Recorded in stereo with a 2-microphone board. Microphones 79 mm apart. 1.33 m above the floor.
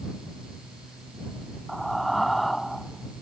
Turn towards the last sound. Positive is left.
turn(degrees=0)  # may be behind; listen again after turning